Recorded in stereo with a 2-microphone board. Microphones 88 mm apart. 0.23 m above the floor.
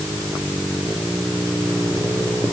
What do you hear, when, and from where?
Only background noise.